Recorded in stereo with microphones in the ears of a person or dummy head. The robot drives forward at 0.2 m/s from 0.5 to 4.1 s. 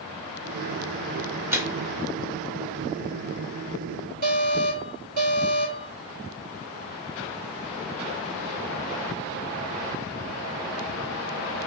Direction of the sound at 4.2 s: 55° right (ahead or behind).